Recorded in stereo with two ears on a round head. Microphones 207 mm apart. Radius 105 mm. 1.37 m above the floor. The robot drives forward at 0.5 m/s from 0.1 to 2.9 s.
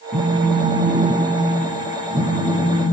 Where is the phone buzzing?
30° right (ahead or behind), 3 m; by 2.8 s 20° right (ahead or behind), 4 m.